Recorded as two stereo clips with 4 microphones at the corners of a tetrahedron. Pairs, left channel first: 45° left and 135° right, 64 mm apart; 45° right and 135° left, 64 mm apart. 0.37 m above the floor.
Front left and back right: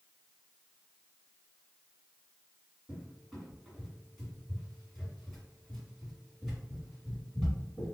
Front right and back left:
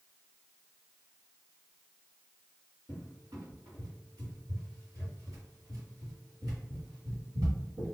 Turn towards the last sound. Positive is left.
turn(degrees=135)